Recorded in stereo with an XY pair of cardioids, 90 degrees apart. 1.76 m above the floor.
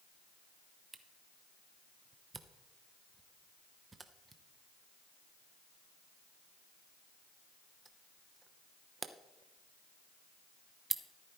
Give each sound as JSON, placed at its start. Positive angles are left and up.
{"t": 0.9, "sound": "a camera shutter", "azimuth_deg": -30, "distance_m": 0.9}